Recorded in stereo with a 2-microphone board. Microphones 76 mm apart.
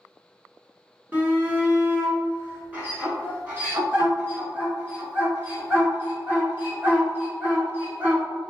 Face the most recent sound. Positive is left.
turn(degrees=-25)  # may be behind; listen again after turning